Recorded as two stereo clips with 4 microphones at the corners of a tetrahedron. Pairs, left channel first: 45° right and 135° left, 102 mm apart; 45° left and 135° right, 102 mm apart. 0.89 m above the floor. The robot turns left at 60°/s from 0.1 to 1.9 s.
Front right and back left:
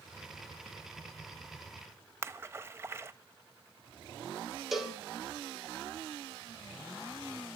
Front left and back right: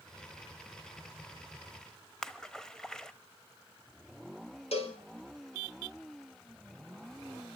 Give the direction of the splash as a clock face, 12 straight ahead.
8 o'clock.